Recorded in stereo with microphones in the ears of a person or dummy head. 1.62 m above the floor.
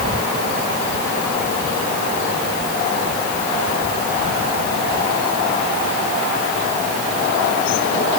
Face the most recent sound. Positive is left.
No sound to turn to.